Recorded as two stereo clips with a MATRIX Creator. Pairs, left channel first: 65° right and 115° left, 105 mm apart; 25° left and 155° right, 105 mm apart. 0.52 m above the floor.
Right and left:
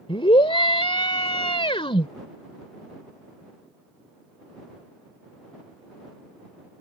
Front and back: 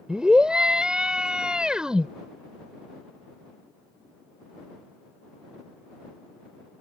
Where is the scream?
75° right.